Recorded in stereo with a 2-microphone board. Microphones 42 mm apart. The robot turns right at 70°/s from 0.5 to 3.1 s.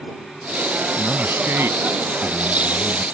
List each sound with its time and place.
1.0 s a man speaking: 155° right; by 3.0 s 10° right